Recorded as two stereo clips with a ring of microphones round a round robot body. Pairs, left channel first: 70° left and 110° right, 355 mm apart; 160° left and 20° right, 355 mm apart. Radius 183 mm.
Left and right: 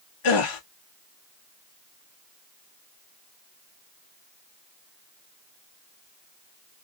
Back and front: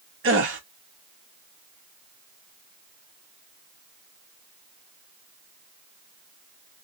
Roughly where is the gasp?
Ahead left.